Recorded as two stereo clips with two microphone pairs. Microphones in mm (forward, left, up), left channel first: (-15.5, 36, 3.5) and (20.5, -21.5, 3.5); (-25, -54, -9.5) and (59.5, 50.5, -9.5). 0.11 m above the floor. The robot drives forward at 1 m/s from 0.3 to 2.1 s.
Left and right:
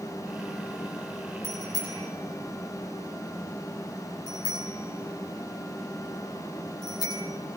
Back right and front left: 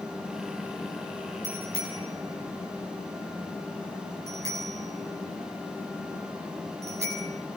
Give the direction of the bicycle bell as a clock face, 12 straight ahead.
8 o'clock.